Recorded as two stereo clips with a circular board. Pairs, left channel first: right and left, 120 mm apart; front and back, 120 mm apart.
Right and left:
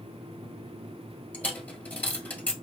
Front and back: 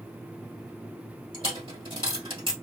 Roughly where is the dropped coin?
Behind.